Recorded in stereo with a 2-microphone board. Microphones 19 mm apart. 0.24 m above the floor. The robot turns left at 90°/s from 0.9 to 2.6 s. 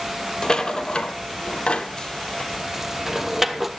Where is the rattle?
35° left (ahead or behind), 1.1 m; by 3.7 s 10° right (ahead or behind), 1.1 m.